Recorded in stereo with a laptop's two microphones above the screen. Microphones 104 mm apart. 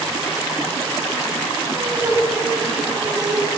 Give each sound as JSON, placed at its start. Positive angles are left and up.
{"t": 1.7, "sound": "laughter", "side_deg": -25, "distance_m": 6.5}